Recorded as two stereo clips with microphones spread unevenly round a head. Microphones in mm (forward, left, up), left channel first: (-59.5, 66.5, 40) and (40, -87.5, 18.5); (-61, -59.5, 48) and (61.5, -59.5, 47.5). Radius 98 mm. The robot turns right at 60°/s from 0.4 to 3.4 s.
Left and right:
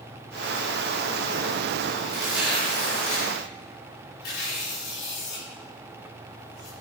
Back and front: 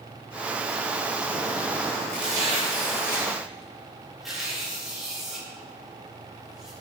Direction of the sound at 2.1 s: 10° left.